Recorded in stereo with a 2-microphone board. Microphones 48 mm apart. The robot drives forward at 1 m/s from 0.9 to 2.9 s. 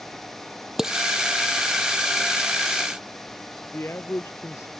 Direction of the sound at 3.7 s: 60° left (ahead or behind).